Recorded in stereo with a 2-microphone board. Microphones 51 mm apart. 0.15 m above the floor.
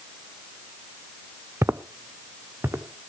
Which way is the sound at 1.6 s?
65° right (ahead or behind).